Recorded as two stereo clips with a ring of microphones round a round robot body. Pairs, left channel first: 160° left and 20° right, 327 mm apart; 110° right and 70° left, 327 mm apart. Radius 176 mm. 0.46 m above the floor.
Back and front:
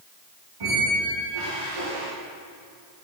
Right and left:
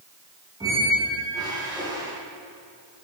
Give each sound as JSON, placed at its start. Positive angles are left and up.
{"t": 0.6, "sound": "a squeak", "azimuth_deg": -10, "distance_m": 7.5}